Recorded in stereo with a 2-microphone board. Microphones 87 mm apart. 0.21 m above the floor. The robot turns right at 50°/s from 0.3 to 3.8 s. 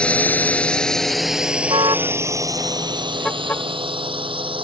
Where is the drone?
15° left (ahead or behind); by 4.7 s 80° right.